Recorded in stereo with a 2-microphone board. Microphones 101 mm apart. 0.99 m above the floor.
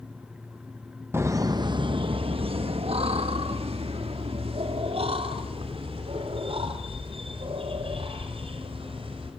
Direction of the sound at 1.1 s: 25° right (ahead or behind).